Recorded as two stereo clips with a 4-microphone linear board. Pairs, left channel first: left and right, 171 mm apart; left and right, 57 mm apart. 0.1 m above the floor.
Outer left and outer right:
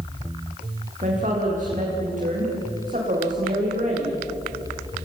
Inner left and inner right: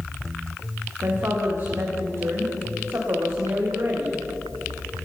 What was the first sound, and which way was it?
A woman speaking, 50° right (ahead or behind).